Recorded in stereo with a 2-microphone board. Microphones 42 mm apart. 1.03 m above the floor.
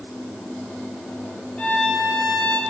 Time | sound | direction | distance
1.6 | a violin | 30° left (ahead or behind) | 1.8 m